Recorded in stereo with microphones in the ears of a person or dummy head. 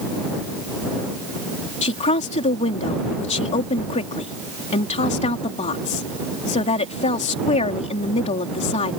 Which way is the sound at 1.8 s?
35° left (ahead or behind).